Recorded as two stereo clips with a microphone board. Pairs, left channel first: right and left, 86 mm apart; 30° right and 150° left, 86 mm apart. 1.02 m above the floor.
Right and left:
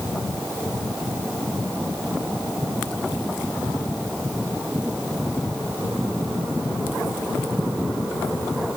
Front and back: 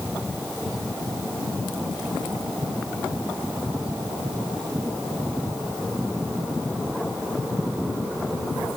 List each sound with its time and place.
Only background noise.